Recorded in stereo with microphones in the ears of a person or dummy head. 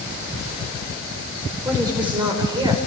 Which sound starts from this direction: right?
A woman speaking, at 1.6 s.